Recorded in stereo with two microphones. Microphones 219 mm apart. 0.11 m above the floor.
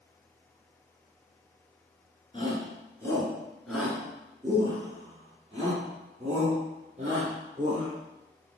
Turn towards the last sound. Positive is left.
turn(degrees=-40)  # may be behind; listen again after turning